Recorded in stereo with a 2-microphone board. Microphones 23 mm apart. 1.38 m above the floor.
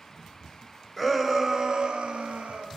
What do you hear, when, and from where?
1.0 s a shout: 10° right (ahead or behind), 0.9 m; by 2.7 s 80° right, 0.8 m